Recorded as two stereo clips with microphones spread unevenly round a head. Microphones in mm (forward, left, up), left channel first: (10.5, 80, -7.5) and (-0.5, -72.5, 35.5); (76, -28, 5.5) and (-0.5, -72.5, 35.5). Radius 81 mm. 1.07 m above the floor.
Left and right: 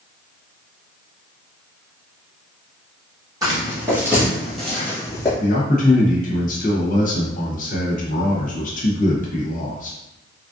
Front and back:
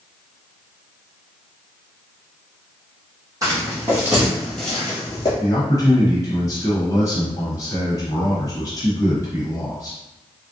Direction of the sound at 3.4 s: 140° right.